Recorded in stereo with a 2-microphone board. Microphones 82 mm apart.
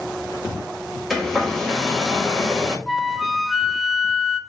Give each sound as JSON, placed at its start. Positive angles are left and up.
{"t": 1.1, "sound": "a hair dryer", "side_deg": 0, "distance_m": 1.4}
{"t": 2.9, "sound": "a flute", "side_deg": 0, "distance_m": 0.6}